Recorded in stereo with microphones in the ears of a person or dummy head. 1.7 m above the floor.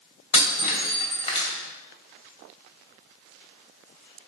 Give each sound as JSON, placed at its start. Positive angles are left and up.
{"t": 0.3, "sound": "breaking glass", "side_deg": 35, "distance_m": 3.0}